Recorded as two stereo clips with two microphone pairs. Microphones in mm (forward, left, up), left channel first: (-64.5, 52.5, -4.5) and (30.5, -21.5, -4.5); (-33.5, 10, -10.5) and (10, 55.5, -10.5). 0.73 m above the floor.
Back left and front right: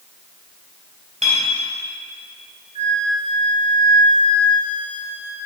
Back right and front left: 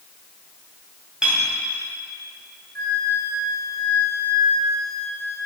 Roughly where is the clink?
Ahead right.